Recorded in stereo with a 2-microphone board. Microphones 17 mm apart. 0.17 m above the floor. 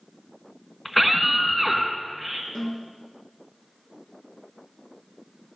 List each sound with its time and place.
0.8 s a scream: centre (ahead or behind), 2 m
2.5 s a snare drum: 90° left, 8 m